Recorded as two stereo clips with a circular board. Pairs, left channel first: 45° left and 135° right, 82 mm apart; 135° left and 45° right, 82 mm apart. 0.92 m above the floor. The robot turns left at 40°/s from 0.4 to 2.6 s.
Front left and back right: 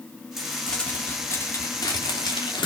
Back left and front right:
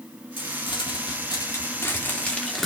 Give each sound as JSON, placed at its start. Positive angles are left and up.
{"t": 0.4, "sound": "crumpling", "azimuth_deg": 135, "distance_m": 2.5}